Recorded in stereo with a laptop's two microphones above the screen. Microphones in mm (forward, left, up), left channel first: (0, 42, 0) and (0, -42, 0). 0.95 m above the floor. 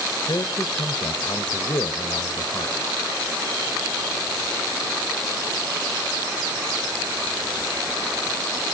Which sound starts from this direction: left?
A man speaking, at 0.3 s.